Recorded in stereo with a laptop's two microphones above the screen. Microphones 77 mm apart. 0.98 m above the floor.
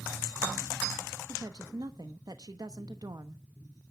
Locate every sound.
1.3 s a woman speaking: 60° right (ahead or behind), 1.0 m